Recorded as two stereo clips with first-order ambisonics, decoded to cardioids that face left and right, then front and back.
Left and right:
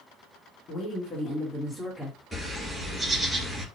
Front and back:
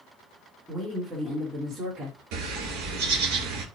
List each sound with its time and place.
0.7 s a woman speaking: 100° left, 1.1 m; by 2.2 s 165° left, 1.4 m
2.3 s a bird: straight behind, 1.4 m